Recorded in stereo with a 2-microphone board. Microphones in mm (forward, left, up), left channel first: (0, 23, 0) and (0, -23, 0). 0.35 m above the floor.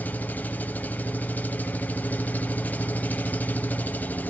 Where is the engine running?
35° left (ahead or behind), 0.8 m.